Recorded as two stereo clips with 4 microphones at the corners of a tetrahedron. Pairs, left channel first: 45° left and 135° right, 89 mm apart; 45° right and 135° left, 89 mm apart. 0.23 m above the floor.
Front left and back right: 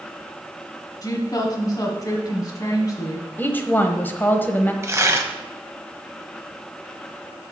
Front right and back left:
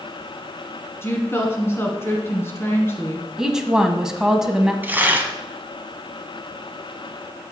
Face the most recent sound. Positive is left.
turn(degrees=-170)